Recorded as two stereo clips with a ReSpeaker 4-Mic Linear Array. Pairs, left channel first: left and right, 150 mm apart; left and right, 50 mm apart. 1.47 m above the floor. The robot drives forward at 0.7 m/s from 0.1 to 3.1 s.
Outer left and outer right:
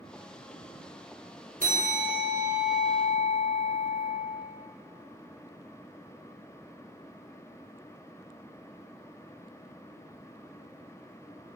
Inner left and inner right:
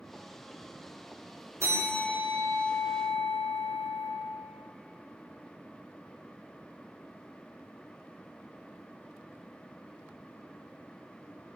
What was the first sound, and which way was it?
A bell, 70° right (ahead or behind).